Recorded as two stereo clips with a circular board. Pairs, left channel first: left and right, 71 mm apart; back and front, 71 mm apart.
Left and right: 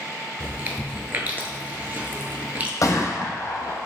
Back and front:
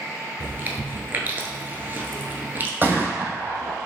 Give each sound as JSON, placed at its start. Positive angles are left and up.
{"t": 0.4, "sound": "chewing", "azimuth_deg": -40, "distance_m": 0.5}
{"t": 2.8, "sound": "a gunshot", "azimuth_deg": 60, "distance_m": 0.7}